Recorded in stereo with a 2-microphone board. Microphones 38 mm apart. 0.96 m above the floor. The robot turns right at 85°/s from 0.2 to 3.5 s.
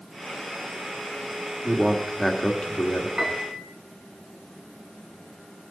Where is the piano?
20° right (ahead or behind), 1.9 m; by 3.6 s 45° right (ahead or behind), 1.9 m.